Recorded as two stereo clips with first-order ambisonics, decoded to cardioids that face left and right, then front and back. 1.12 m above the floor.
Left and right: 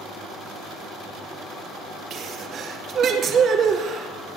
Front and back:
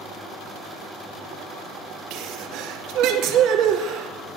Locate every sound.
2.1 s a sneeze: 145° right, 2.5 m